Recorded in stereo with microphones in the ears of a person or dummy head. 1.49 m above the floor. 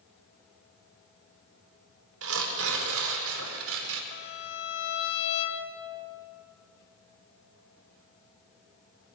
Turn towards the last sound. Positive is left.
turn(degrees=85)